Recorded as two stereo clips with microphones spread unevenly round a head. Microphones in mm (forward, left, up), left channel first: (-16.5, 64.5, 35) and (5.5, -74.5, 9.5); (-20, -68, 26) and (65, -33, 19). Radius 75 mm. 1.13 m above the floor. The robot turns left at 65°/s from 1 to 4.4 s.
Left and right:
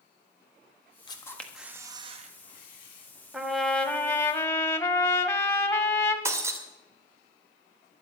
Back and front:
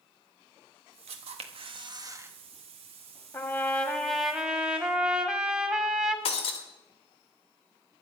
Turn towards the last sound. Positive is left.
turn(degrees=-155)